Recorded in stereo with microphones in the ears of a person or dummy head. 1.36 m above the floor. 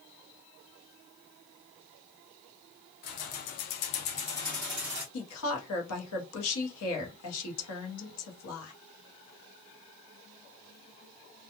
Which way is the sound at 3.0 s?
50° left (ahead or behind).